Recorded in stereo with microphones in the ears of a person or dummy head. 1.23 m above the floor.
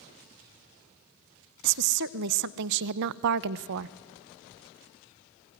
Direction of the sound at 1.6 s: 65° right (ahead or behind).